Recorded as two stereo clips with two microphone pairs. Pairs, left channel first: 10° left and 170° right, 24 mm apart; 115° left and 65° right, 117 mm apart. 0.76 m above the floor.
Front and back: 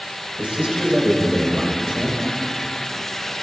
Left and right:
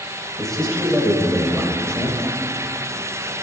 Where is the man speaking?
160° right, 3 m.